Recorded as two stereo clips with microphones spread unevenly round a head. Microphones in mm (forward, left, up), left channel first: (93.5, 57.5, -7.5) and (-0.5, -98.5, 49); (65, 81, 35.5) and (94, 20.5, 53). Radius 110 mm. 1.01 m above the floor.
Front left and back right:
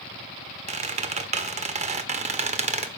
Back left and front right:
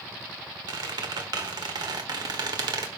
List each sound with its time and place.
0.7 s a squeak: 75° right, 1.3 m